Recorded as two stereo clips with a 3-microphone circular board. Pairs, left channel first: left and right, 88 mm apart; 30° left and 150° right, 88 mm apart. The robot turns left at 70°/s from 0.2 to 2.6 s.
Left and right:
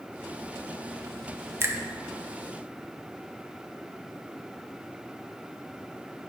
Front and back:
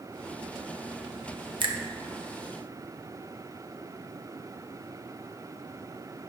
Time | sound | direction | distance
1.6 | a finger snap | 150° right | 0.7 m